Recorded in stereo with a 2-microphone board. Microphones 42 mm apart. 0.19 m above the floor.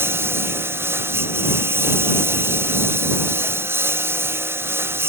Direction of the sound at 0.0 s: 85° right.